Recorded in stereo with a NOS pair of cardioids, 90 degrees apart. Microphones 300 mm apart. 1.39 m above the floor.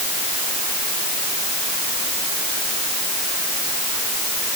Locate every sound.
Only background noise.